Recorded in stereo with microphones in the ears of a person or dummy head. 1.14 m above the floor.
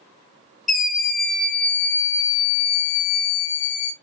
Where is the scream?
5° right (ahead or behind), 1.7 m; by 3.9 s 60° left (ahead or behind), 0.9 m.